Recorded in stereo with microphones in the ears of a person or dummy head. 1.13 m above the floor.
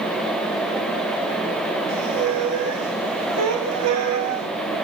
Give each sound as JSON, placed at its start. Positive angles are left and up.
{"t": 1.9, "sound": "a squeak", "side_deg": -80, "distance_m": 3.0}